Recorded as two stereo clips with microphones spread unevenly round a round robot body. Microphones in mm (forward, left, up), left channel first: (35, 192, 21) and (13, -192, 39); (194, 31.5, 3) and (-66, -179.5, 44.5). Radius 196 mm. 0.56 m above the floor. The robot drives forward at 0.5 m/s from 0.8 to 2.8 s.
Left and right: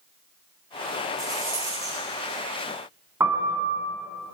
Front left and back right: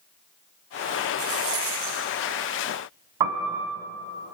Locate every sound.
1.2 s a rattle: 175° right, 6 m
3.2 s a piano: 175° right, 2.5 m